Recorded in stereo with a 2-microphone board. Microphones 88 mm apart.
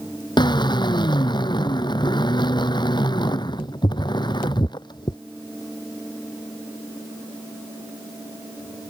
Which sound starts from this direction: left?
A drill, at 0.4 s.